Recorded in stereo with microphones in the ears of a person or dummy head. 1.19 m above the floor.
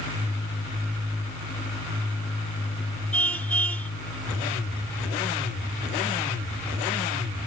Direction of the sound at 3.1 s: 10° left (ahead or behind).